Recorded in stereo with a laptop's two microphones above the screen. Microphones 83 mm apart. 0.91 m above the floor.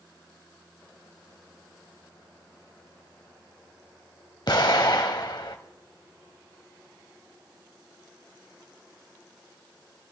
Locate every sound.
4.5 s an explosion: 65° left (ahead or behind), 1.2 m